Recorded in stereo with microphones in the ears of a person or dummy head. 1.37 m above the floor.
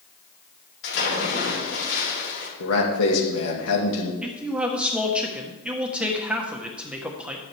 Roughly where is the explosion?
No explosion in this recording.